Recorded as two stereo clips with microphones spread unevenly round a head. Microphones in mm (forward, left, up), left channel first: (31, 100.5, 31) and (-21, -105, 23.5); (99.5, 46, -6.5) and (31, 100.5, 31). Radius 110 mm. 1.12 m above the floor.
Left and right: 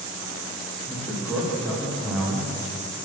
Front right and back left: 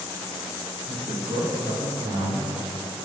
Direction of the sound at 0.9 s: 165° left.